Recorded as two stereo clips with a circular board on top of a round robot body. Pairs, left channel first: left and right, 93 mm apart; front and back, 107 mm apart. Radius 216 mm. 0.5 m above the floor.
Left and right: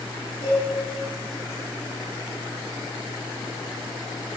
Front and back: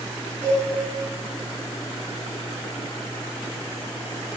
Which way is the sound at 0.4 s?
100° left.